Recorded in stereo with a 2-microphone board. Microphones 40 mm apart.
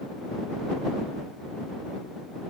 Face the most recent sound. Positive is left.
No sound to turn to.